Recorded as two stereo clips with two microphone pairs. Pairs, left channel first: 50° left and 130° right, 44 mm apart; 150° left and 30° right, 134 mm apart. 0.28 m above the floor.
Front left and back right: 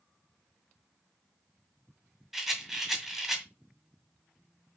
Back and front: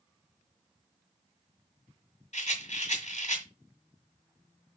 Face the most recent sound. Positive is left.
turn(degrees=145)